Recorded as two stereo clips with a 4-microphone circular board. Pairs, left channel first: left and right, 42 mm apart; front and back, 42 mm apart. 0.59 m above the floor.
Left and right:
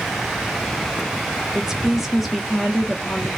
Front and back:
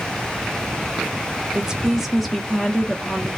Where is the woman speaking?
145° right, 0.9 m; by 3.4 s 25° left, 0.9 m.